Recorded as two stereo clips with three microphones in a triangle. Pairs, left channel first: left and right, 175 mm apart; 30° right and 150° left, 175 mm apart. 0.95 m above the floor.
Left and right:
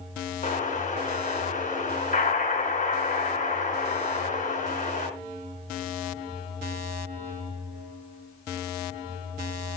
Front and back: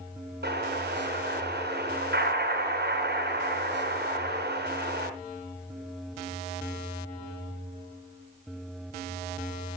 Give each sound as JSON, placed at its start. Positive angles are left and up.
{"t": 0.4, "sound": "an explosion", "azimuth_deg": 135, "distance_m": 3.5}